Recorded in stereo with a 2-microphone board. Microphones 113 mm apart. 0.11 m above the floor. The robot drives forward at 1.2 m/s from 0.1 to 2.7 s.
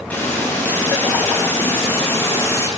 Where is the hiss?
15° left (ahead or behind), 8.5 m; by 2.7 s 20° left (ahead or behind), 5.5 m.